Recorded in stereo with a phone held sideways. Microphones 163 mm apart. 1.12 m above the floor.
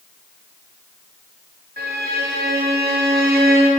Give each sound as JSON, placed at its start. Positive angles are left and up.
{"t": 1.8, "sound": "a violin", "side_deg": -65, "distance_m": 0.6}